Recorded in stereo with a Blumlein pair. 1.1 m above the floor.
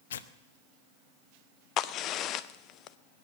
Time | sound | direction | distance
0.1 | tearing paper | 60° left | 0.7 m
1.8 | a crack | 35° left | 0.6 m